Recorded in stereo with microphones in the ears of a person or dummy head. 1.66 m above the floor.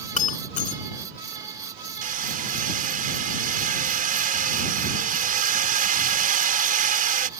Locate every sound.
0.2 s breaking glass: 40° left (ahead or behind)
2.0 s hammering: 50° right (ahead or behind)